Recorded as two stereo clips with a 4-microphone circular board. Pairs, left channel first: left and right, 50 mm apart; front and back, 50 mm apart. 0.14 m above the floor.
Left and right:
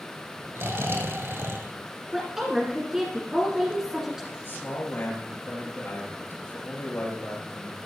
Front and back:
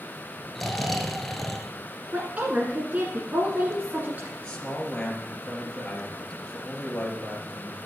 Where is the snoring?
85° right, 1.0 m.